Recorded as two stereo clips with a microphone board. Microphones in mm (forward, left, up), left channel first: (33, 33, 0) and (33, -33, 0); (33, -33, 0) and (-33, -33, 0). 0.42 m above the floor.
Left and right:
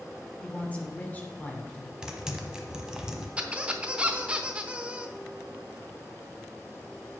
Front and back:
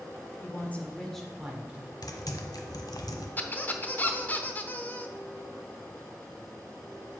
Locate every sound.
0.4 s a woman speaking: 30° left, 1.6 m; by 1.9 s 135° left, 1.6 m
2.0 s typing on a keyboard: 10° right, 1.1 m
3.4 s a squeak: 30° right, 0.8 m